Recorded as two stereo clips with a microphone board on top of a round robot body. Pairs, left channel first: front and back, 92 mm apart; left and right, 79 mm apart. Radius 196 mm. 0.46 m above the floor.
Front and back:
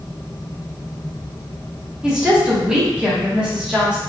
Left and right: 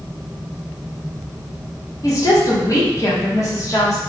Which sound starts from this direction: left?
A woman speaking, at 2.0 s.